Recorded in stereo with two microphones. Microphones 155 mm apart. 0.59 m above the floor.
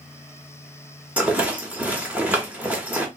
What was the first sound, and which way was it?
A rattle, 10° right (ahead or behind).